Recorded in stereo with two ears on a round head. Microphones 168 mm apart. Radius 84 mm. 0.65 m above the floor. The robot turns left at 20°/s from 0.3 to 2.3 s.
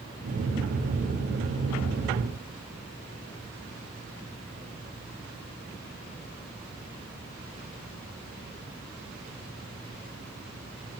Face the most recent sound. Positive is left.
No sound to turn to.